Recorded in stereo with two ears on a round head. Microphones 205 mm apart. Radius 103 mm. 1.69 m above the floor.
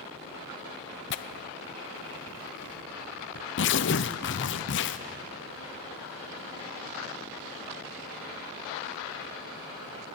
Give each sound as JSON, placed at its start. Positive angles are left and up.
{"t": 1.1, "sound": "tearing paper", "side_deg": 50, "distance_m": 0.7}